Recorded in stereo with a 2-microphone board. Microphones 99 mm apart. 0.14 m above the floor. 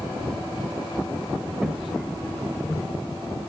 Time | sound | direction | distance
1.6 | footsteps | 10° right (ahead or behind) | 2 m